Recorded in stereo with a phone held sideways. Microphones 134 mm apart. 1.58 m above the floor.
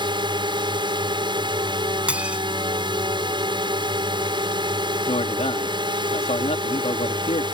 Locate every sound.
0.0 s a drone: 35° right (ahead or behind)
2.1 s dishes clattering: 10° right (ahead or behind)
5.1 s a man speaking: 50° left (ahead or behind)